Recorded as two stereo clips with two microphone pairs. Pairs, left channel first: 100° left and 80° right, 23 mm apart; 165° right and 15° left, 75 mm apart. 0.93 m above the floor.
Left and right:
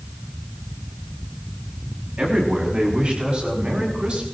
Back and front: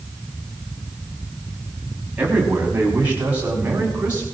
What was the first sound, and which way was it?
A man speaking, 55° right.